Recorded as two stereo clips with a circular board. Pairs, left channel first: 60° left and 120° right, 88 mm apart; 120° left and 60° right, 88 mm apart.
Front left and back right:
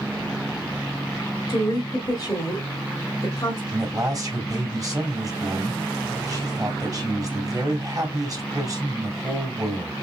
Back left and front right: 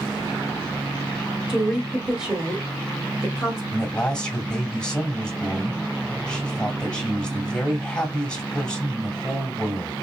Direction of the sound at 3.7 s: 160° right.